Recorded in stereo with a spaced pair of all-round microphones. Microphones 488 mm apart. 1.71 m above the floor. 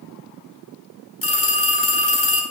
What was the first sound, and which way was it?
A phone ringing, 30° left (ahead or behind).